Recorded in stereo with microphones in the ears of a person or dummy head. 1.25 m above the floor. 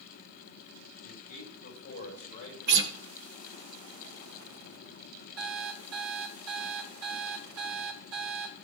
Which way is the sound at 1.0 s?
50° left (ahead or behind).